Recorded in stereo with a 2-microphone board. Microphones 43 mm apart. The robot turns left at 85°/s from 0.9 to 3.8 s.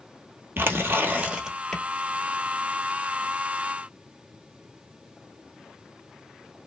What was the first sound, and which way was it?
Tearing paper, 120° right.